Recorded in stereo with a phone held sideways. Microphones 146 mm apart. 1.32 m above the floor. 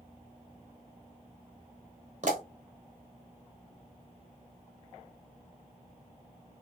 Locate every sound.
2.2 s a pop: 55° right (ahead or behind), 1.0 m